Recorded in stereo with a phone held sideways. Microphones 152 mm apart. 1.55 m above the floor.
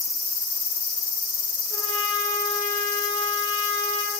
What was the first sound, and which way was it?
A trumpet, 25° left (ahead or behind).